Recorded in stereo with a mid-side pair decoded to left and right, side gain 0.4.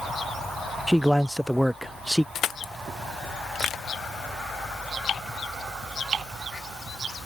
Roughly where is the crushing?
Left.